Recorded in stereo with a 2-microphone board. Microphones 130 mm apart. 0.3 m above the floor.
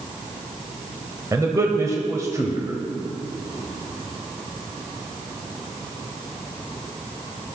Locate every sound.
1.3 s a man speaking: 25° right (ahead or behind), 1.4 m